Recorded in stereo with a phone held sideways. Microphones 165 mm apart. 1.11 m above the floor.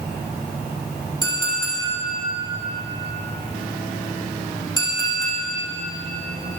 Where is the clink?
25° left (ahead or behind), 2.5 m.